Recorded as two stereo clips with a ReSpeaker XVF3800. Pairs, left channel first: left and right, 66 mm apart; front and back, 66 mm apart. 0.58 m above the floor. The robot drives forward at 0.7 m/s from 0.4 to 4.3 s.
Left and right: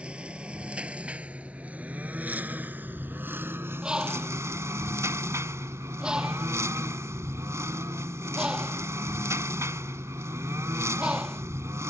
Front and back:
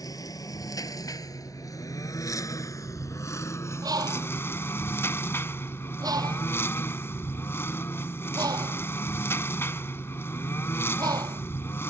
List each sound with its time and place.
0.0 s a lawn mower: 20° right; by 11.9 s 50° right
3.8 s a bird: 170° right